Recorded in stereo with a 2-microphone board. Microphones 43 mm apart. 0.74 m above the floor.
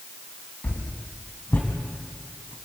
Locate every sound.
0.6 s a whoosh: 50° left (ahead or behind), 3 m